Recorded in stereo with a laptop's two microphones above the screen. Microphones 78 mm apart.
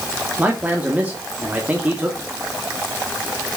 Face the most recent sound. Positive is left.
turn(degrees=-20)  # may be behind; listen again after turning